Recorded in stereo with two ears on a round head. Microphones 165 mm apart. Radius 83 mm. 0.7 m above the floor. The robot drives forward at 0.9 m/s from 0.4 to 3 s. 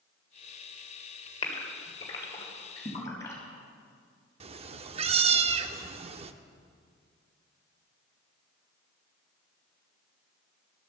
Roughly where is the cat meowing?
Right.